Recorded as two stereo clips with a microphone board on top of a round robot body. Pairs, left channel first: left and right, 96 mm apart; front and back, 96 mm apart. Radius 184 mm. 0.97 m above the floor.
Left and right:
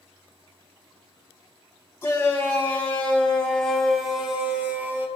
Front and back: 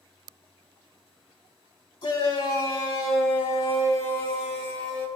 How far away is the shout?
About 4 m.